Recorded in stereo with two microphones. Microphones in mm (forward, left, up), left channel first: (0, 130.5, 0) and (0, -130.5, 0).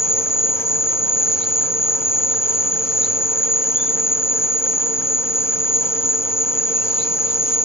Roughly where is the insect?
Centre.